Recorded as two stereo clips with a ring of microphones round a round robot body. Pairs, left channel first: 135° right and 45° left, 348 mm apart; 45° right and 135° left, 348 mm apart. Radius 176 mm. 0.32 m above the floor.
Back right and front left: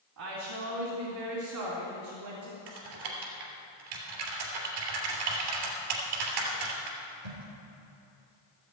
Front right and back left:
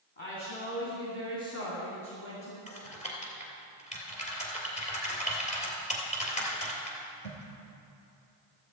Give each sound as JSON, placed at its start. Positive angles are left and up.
{"t": 0.2, "sound": "a woman speaking", "azimuth_deg": 20, "distance_m": 3.0}
{"t": 2.7, "sound": "typing on a keyboard", "azimuth_deg": 25, "distance_m": 3.0}